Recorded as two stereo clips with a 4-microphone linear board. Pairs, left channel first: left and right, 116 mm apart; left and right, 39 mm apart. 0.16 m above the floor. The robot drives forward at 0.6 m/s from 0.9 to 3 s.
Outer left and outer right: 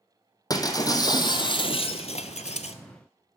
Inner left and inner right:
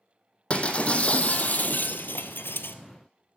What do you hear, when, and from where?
0.5 s breaking glass: 35° left (ahead or behind), 1.1 m; by 2.8 s 75° left (ahead or behind), 0.7 m